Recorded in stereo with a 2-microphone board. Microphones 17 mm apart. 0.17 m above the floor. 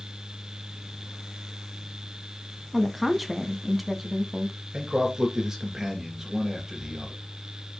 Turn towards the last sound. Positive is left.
turn(degrees=-35)  # may be behind; listen again after turning